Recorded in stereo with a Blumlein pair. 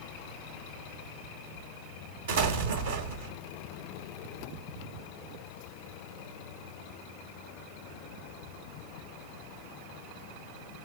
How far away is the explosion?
About 1.1 m.